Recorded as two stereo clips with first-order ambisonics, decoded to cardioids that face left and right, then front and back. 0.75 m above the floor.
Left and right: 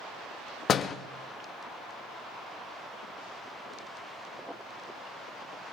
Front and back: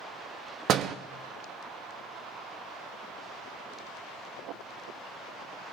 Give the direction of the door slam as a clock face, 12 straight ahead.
7 o'clock.